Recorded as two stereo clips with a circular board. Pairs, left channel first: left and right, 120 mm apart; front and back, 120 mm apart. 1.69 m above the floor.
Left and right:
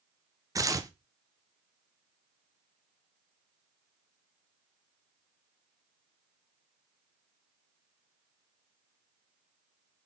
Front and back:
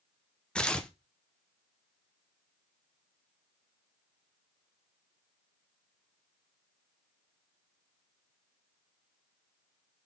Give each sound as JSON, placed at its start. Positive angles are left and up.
{"t": 0.6, "sound": "tearing paper", "azimuth_deg": -75, "distance_m": 0.7}